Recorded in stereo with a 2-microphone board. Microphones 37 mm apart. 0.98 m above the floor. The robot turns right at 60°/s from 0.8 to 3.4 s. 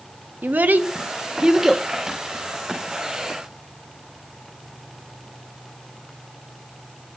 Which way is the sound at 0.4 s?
60° right (ahead or behind).